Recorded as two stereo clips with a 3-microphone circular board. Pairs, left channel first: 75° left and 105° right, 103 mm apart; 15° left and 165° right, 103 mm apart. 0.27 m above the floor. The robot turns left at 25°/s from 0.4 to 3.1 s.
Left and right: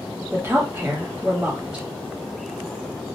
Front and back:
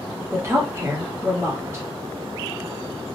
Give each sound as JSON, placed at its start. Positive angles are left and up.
{"t": 0.3, "sound": "a woman speaking", "azimuth_deg": -140, "distance_m": 1.0}